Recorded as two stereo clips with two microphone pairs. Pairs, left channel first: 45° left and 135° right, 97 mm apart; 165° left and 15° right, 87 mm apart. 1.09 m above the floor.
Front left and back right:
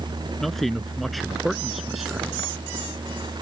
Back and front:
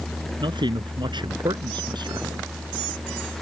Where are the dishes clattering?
I don't hear dishes clattering.